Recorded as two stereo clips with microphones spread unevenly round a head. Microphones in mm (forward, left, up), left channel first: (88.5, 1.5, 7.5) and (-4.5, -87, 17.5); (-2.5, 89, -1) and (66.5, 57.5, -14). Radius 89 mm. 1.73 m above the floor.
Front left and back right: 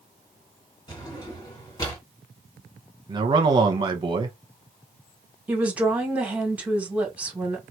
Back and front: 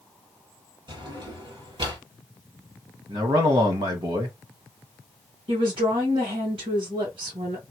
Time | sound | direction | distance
0.9 | a drawer | 15° right | 2.5 m
3.1 | a man speaking | 85° right | 1.1 m
5.5 | a woman speaking | 60° right | 2 m